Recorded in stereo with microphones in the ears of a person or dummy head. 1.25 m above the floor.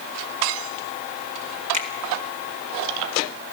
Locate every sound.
1.7 s a finger snap: 40° right (ahead or behind), 2.5 m